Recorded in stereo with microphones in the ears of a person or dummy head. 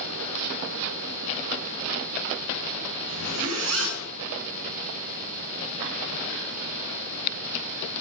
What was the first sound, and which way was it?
A zipper, 85° right.